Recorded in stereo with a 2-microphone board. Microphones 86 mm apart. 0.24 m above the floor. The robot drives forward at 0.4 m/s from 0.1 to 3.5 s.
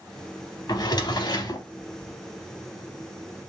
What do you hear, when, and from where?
0.7 s a drawer: 50° left (ahead or behind), 0.6 m; by 1.7 s 45° left (ahead or behind), 0.6 m